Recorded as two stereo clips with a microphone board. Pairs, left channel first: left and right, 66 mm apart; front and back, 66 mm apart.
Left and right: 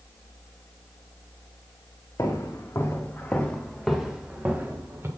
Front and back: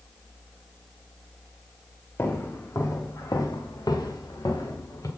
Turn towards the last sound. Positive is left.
turn(degrees=-35)